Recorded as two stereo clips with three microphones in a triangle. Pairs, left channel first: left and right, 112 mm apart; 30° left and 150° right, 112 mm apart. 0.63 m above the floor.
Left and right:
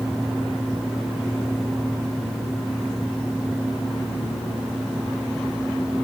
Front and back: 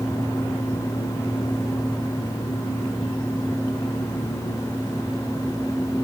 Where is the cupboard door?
I don't hear a cupboard door.